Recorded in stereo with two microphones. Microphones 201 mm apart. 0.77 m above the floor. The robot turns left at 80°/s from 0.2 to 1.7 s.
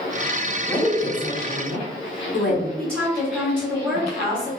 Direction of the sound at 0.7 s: 160° right.